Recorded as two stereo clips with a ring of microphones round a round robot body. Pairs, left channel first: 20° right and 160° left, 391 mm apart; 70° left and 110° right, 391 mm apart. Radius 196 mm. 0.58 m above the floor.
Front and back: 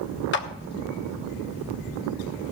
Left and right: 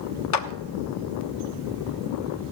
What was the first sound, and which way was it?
A clap, 35° left.